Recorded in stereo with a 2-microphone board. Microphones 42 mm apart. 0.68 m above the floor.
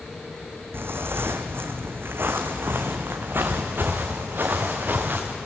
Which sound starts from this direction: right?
Footsteps, at 0.7 s.